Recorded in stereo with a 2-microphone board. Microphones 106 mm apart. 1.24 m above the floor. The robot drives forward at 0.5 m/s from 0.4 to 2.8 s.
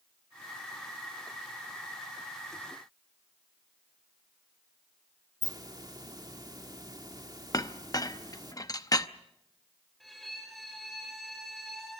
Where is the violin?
Centre (ahead or behind), 5.5 m.